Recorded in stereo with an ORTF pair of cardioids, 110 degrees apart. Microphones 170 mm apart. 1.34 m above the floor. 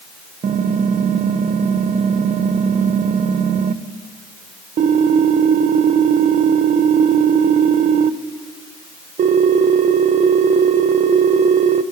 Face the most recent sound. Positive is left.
turn(degrees=-45)